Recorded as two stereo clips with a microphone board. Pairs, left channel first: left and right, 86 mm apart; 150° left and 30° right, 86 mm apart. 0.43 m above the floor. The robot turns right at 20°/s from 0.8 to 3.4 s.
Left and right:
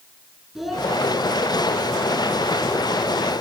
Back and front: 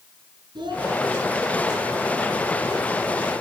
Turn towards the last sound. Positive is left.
turn(degrees=50)